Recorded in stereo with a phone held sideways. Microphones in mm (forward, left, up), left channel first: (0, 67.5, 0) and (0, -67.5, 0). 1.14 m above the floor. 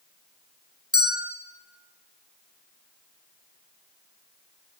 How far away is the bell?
About 4 m.